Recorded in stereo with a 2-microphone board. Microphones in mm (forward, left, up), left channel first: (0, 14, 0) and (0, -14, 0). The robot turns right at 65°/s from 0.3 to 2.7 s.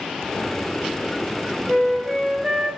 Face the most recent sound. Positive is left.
turn(degrees=-105)